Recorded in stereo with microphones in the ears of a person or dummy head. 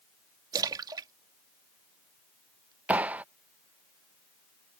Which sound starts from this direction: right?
A splash, at 0.5 s.